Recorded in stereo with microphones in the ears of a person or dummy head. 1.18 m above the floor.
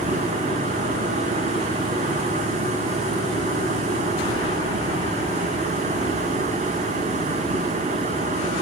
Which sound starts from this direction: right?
Running water, at 0.0 s.